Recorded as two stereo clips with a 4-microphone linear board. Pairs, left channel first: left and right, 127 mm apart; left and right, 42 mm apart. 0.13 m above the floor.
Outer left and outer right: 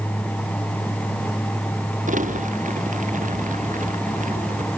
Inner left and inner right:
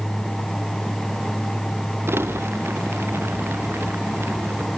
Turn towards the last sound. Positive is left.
turn(degrees=-85)